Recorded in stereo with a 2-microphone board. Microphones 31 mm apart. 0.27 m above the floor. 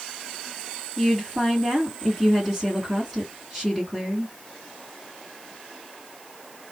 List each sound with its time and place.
1.0 s a woman speaking: 10° right (ahead or behind), 2.5 m